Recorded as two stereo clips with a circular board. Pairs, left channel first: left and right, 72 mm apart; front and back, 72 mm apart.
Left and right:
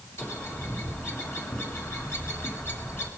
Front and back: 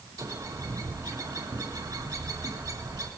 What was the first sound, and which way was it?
A bird, 145° left.